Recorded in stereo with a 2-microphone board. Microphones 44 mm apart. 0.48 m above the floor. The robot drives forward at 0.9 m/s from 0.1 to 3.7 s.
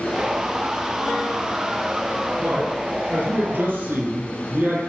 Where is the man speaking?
55° right (ahead or behind), 4.5 m; by 4.8 s 45° right (ahead or behind), 5 m.